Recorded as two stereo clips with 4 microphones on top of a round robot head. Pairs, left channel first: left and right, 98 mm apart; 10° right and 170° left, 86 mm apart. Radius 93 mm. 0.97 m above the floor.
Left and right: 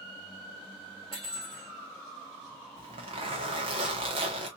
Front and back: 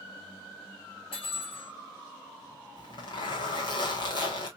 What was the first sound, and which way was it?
Cutlery clinking, 35° right.